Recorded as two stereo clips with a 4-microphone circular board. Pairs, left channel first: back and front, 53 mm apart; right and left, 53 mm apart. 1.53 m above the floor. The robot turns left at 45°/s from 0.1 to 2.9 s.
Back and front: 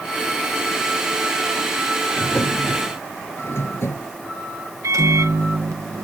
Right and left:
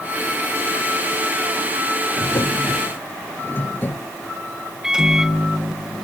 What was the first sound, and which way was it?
A drawer, 110° right.